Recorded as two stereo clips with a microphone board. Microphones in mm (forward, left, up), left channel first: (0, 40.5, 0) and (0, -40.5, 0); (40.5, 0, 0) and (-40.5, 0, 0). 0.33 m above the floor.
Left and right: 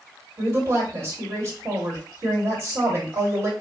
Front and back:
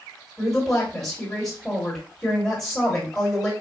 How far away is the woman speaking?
About 1.7 m.